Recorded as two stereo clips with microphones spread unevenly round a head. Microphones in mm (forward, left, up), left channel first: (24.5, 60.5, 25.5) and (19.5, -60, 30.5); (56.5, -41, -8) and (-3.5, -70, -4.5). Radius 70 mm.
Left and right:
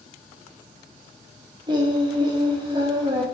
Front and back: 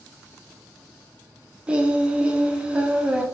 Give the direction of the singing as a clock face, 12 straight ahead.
3 o'clock.